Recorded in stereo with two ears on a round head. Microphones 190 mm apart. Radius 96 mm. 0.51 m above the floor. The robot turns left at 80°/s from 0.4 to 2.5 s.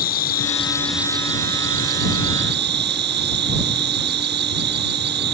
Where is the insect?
40° left; by 5.3 s 125° right.